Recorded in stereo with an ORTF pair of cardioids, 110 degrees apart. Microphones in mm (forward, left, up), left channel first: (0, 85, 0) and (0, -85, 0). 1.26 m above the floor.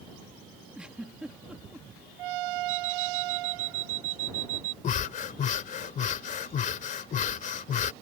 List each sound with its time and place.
0.8 s a giggle: 5° right
2.7 s an alarm clock: 55° right
4.8 s breathing: 50° left